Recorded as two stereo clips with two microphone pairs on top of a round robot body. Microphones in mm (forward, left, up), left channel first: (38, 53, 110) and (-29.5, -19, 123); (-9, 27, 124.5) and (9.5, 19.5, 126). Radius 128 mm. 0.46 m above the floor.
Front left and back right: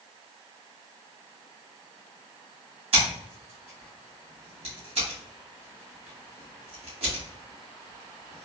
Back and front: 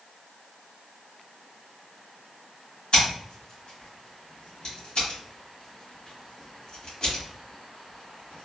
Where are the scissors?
150° right, 1.3 m.